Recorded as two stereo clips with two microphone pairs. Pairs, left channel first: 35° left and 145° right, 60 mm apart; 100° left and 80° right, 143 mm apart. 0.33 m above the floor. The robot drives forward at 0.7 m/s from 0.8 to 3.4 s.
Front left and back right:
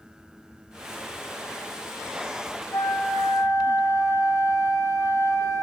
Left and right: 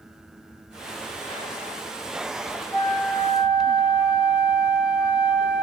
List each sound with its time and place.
2.7 s a flute: 40° left, 5 m; by 5.6 s 45° left, 4.5 m